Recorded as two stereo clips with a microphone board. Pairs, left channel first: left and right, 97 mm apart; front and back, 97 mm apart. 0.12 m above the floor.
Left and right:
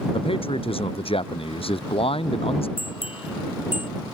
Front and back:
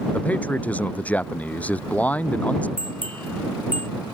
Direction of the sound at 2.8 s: 75° left.